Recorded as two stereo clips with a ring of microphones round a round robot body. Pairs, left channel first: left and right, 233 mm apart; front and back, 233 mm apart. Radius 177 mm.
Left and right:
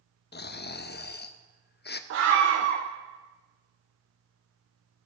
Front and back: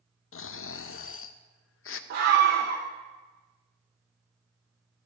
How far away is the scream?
About 0.6 m.